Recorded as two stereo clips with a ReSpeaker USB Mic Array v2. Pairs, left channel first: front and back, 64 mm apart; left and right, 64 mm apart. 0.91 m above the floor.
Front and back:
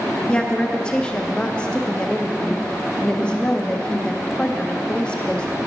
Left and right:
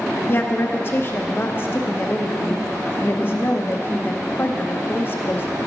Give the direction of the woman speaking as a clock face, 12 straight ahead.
10 o'clock.